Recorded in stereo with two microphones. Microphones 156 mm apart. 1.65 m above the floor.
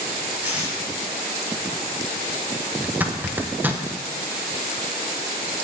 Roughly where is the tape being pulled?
Centre.